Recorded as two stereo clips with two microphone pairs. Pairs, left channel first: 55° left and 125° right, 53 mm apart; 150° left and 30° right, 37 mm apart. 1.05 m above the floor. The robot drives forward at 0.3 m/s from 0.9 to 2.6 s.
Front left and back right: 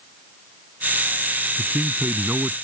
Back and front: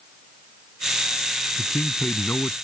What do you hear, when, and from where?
1.6 s a man speaking: 170° right